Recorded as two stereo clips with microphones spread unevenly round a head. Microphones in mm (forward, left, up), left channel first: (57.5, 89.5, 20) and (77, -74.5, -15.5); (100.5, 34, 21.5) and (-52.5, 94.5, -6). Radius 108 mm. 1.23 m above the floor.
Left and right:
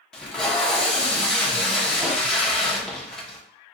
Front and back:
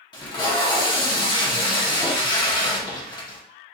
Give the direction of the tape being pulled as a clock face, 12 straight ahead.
11 o'clock.